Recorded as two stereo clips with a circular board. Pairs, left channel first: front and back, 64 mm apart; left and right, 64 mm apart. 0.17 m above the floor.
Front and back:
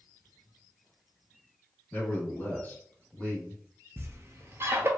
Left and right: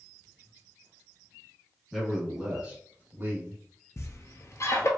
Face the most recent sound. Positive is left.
turn(degrees=130)